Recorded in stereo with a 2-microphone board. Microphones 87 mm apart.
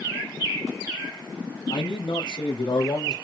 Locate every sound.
1.7 s a man speaking: 75° left (ahead or behind), 5.5 m; by 3.1 s 70° left (ahead or behind), 6 m